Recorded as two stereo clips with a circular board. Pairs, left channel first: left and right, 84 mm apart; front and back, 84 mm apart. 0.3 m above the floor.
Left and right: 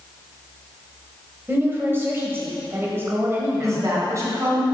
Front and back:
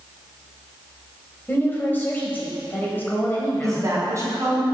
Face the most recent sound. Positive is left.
turn(degrees=-135)